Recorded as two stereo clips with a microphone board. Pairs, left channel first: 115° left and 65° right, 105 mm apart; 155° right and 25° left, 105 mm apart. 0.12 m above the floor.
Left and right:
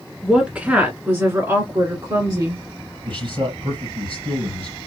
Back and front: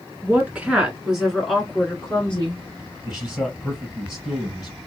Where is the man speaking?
65° right, 3.5 m.